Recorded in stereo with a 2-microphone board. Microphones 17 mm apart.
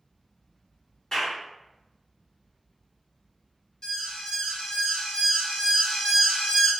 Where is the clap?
35° left (ahead or behind), 1.4 m.